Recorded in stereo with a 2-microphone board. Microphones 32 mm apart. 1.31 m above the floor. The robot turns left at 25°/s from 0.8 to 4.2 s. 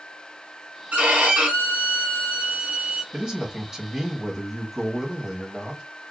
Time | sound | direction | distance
0.9 | a violin | 90° right | 1.2 m
3.1 | a man speaking | 25° right (ahead or behind) | 1.3 m